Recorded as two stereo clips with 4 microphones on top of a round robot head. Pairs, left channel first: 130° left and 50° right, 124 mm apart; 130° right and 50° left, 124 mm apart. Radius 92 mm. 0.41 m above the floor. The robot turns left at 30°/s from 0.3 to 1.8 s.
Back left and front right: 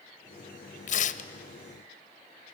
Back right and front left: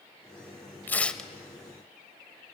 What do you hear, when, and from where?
0.9 s tearing paper: 150° left, 0.8 m; by 1.3 s 140° left, 0.8 m